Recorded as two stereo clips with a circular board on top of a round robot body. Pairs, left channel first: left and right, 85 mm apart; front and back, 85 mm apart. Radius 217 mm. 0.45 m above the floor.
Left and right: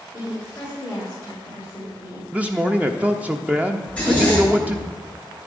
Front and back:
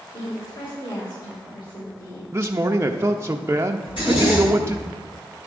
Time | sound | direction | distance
0.1 | a woman speaking | 25° left | 4 m
2.3 | a man speaking | 150° right | 0.9 m
3.8 | a zipper | 10° left | 5.5 m